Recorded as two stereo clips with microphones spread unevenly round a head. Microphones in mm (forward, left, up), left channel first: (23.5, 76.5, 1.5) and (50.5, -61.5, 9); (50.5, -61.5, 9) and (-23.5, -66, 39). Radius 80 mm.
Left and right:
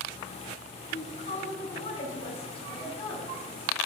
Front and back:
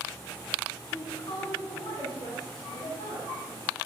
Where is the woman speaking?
60° left, 9.5 m; by 3.8 s 40° left, 8.5 m.